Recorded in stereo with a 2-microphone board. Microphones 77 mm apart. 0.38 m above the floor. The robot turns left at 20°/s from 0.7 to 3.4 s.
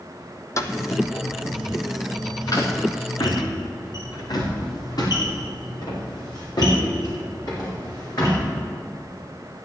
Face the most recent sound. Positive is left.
turn(degrees=55)  # may be behind; listen again after turning